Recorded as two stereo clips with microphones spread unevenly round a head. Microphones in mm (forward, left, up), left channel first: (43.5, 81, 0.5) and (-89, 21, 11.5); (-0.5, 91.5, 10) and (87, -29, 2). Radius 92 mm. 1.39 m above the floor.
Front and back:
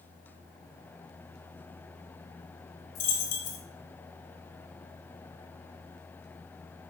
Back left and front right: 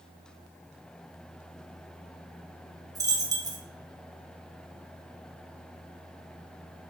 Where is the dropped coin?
10° left, 1.4 m.